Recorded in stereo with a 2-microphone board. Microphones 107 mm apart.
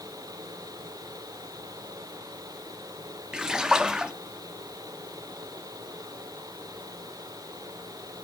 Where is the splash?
10° right (ahead or behind), 0.8 m.